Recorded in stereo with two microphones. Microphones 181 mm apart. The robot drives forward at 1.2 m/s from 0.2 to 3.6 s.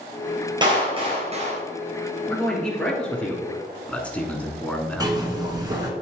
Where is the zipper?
20° right (ahead or behind), 1.6 m.